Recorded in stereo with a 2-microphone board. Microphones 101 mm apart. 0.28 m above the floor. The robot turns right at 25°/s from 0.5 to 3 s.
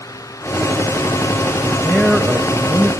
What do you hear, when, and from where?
1.6 s a man speaking: 5° right (ahead or behind), 1.0 m; by 2.9 s 20° right (ahead or behind), 1.0 m